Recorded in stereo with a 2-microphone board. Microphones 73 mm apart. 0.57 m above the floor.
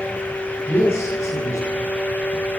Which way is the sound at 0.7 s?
40° left (ahead or behind).